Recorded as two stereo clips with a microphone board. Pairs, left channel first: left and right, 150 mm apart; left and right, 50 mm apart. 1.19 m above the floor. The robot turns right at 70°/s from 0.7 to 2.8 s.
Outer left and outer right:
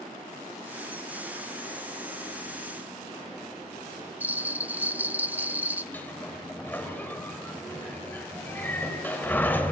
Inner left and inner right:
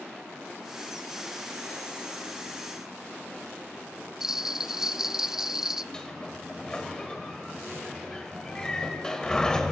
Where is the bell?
10° right (ahead or behind), 0.7 m.